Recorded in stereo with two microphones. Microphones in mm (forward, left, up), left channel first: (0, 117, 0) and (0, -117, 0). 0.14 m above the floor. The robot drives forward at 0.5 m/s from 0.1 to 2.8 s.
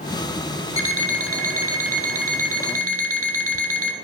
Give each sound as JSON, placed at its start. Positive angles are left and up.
{"t": 0.8, "sound": "an alarm clock", "side_deg": -65, "distance_m": 1.8}